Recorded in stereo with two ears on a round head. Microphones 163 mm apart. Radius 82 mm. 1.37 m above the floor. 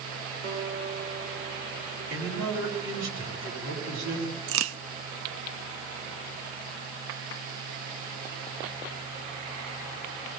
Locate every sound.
0.4 s a guitar: 65° right (ahead or behind), 7 m
2.1 s a man speaking: 80° right, 10 m
4.5 s a crack: 80° right, 0.8 m